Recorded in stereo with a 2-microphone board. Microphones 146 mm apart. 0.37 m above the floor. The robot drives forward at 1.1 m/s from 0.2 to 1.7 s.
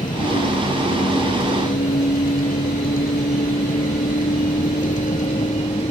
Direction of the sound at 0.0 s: 65° left (ahead or behind).